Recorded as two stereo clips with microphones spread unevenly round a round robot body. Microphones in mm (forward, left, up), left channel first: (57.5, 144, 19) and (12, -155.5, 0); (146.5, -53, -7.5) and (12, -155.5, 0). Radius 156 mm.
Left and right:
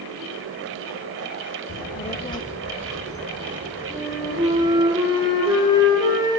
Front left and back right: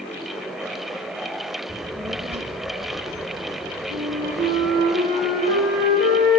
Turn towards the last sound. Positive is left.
turn(degrees=-175)